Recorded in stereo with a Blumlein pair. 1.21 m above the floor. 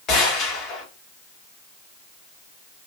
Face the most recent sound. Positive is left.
turn(degrees=30)